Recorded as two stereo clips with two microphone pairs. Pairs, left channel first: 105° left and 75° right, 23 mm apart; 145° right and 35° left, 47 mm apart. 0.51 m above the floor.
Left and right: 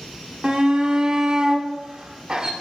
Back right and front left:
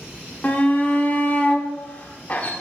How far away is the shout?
About 1.0 m.